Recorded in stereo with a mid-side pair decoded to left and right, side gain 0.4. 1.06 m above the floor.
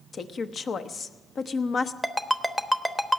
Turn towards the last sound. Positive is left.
turn(degrees=5)